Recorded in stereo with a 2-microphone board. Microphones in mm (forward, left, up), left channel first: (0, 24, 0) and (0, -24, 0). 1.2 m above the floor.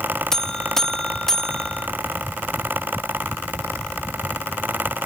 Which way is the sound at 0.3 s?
10° left (ahead or behind).